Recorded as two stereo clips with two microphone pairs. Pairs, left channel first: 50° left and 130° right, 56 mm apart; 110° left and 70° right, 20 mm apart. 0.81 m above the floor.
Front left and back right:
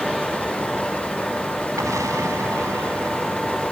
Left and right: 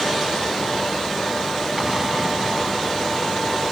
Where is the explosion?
140° right.